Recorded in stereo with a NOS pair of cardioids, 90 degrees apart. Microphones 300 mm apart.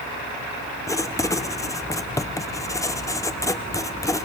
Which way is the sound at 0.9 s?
10° left.